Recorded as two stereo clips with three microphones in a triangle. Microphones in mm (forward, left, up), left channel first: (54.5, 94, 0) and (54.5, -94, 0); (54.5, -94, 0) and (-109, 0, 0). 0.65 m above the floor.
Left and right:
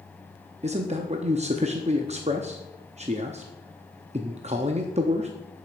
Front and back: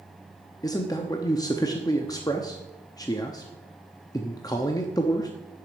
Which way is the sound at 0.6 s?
90° right.